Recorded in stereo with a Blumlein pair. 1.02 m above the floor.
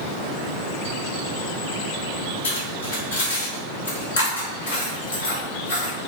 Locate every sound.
2.4 s cutlery clinking: 70° left, 2.5 m